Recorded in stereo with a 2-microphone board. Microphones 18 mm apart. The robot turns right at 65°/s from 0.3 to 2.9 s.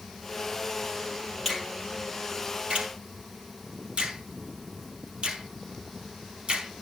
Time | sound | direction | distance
1.4 | a finger snap | 10° right (ahead or behind) | 4.5 m